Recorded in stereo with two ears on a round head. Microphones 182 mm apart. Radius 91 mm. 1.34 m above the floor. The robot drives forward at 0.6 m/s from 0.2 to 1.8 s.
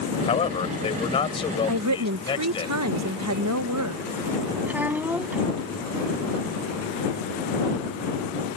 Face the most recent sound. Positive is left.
turn(degrees=-10)  # may be behind; listen again after turning